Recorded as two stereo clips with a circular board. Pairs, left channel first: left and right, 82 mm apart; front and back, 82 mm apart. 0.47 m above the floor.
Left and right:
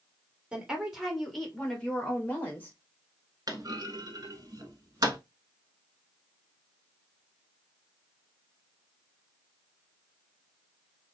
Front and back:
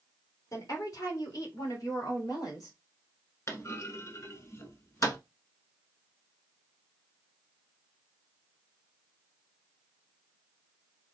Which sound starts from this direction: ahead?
A woman speaking, at 0.5 s.